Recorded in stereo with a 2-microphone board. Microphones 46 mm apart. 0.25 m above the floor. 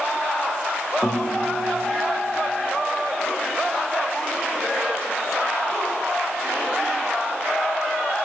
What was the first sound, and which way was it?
A guitar, 20° left (ahead or behind).